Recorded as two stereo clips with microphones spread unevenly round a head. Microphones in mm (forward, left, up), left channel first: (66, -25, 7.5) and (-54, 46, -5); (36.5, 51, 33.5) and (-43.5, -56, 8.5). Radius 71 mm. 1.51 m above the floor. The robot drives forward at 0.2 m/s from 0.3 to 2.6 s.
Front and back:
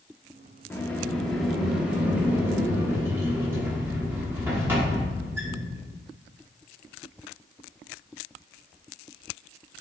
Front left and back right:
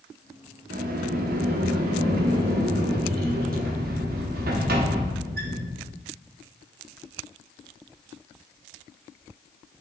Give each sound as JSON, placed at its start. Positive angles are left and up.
{"t": 0.7, "sound": "a sliding door", "azimuth_deg": -110, "distance_m": 0.5}